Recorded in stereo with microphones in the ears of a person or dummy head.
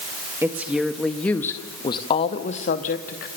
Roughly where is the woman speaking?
Centre.